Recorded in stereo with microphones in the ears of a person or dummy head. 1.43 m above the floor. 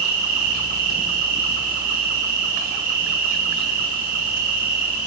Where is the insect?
50° right (ahead or behind), 2.5 m.